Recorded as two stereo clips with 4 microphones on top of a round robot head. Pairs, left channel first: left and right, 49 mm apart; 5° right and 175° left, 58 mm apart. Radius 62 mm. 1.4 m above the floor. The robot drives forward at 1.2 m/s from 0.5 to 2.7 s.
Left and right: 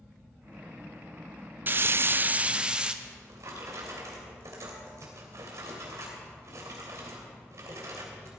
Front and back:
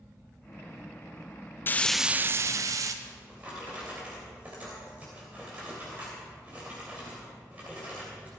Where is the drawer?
110° right, 3 m.